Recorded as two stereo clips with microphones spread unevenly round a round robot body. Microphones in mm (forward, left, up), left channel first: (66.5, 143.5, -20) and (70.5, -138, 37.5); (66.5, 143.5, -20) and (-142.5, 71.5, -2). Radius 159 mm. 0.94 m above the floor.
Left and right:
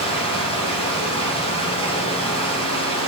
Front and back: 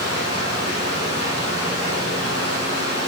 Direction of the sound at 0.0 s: 20° left.